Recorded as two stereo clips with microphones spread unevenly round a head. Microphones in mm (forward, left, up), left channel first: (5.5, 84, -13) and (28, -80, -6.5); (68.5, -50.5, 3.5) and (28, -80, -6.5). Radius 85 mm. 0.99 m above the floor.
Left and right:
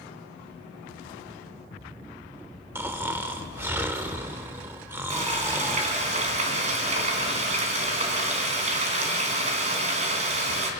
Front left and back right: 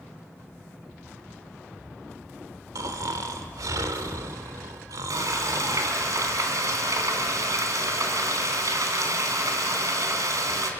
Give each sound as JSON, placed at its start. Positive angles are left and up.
{"t": 2.8, "sound": "snoring", "azimuth_deg": -160, "distance_m": 1.3}
{"t": 5.1, "sound": "frying", "azimuth_deg": -135, "distance_m": 3.5}